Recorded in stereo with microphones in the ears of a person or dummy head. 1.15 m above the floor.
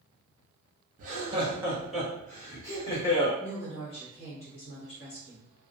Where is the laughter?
45° right (ahead or behind), 0.7 m; by 3.3 s 25° left (ahead or behind), 1.5 m.